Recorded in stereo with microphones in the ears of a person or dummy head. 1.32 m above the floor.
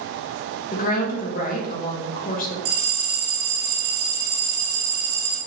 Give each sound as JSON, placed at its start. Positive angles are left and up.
{"t": 0.7, "sound": "a woman speaking", "side_deg": 45, "distance_m": 1.2}
{"t": 2.6, "sound": "a bell", "side_deg": -50, "distance_m": 1.2}